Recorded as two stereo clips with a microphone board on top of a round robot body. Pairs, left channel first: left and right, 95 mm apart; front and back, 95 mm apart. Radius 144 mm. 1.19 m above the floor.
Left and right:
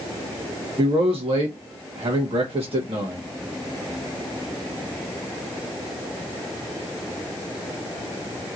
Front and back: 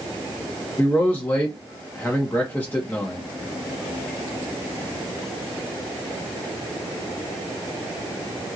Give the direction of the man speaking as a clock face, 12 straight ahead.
2 o'clock.